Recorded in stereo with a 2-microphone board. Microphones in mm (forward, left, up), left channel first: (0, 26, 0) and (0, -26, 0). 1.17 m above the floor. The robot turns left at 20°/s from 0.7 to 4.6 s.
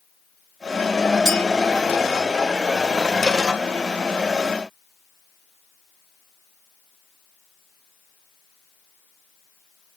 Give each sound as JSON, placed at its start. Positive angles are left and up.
{"t": 1.2, "sound": "a clink", "side_deg": -10, "distance_m": 5.5}